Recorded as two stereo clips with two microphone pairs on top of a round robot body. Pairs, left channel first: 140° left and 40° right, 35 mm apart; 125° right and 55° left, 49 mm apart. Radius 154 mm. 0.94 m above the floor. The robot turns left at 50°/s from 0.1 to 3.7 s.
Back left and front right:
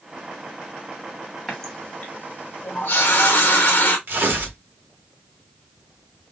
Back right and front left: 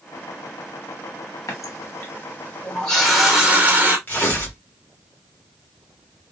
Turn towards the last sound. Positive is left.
turn(degrees=-70)